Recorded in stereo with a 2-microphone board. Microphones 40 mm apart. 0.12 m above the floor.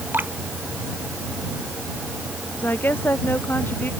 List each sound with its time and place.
0.1 s dripping: 55° right (ahead or behind)
2.6 s a woman speaking: 50° left (ahead or behind)